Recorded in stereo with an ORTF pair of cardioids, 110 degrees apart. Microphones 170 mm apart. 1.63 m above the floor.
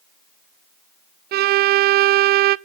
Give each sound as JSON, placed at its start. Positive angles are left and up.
{"t": 1.3, "sound": "a violin", "azimuth_deg": -65, "distance_m": 0.6}